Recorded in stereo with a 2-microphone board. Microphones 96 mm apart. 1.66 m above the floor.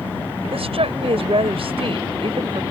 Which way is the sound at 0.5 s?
80° right.